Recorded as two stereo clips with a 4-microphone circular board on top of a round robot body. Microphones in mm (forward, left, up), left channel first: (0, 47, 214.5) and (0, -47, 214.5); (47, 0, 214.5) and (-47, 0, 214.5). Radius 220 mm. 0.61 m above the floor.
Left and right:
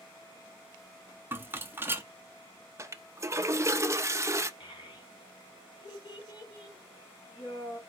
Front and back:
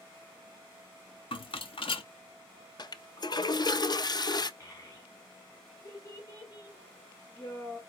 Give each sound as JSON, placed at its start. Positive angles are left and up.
{"t": 1.3, "sound": "a rattle", "azimuth_deg": -20, "distance_m": 0.8}
{"t": 2.8, "sound": "a toilet flushing", "azimuth_deg": -35, "distance_m": 0.6}
{"t": 4.6, "sound": "a child speaking", "azimuth_deg": 55, "distance_m": 1.9}